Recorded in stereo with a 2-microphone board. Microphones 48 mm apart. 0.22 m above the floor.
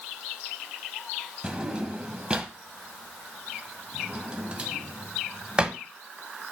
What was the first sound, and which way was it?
A drawer, 20° right (ahead or behind).